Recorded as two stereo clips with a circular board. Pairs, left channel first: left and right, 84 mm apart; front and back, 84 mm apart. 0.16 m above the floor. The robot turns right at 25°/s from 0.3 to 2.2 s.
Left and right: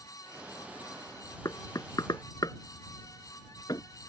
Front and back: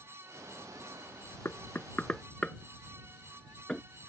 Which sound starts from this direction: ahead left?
Knocking, at 1.4 s.